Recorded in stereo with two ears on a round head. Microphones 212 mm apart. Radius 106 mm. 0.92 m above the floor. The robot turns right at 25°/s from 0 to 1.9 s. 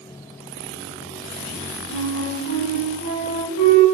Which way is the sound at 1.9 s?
80° left.